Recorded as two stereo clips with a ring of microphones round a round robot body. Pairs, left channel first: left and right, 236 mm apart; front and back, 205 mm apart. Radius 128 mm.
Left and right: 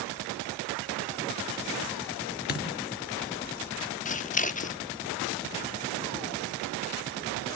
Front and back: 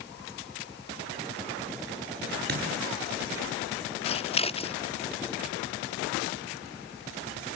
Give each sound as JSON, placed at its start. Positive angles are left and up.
{"t": 2.5, "sound": "a dropped coin", "azimuth_deg": 140, "distance_m": 5.0}
{"t": 4.0, "sound": "scissors", "azimuth_deg": 50, "distance_m": 0.8}